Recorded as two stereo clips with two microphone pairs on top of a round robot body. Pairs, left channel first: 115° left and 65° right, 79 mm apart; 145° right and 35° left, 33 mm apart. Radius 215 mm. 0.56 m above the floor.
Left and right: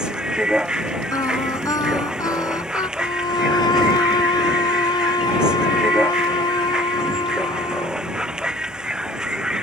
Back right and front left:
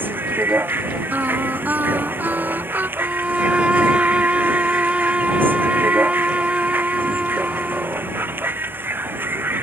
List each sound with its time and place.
0.0 s a vehicle: 15° left
1.1 s singing: 65° left
3.0 s a violin: 85° left